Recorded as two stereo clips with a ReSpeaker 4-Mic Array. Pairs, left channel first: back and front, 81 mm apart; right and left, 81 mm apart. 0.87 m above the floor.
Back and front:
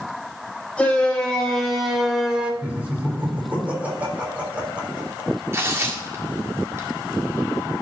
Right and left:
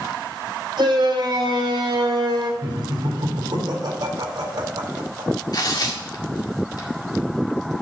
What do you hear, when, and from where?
0.8 s a shout: 105° left, 3.5 m; by 2.5 s 75° left, 2 m
2.6 s laughter: 70° left, 3.5 m
5.5 s tearing paper: 55° right, 1.8 m